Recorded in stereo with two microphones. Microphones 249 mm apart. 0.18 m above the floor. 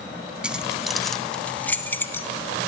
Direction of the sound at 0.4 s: 5° right (ahead or behind).